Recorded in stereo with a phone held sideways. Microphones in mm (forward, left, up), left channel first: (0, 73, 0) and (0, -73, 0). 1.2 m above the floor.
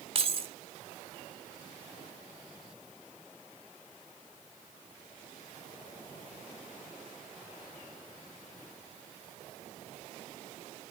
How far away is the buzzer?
No buzzer in this recording.